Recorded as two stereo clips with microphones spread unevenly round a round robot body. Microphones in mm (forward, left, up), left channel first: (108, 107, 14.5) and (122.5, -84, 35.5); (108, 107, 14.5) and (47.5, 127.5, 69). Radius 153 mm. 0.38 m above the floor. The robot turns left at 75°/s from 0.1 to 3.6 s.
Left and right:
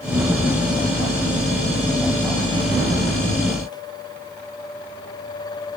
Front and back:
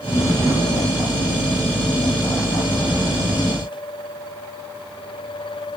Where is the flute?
No flute in this recording.